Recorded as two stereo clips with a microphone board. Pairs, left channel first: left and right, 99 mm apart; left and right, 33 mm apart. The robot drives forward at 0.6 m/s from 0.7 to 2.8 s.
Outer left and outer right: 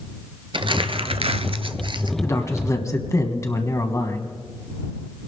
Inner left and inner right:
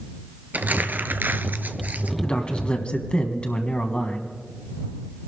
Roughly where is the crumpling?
Right.